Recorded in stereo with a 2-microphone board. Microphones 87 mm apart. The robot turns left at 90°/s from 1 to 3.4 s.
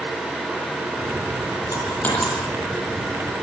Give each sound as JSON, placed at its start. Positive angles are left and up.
{"t": 1.7, "sound": "a dropped coin", "side_deg": 50, "distance_m": 8.0}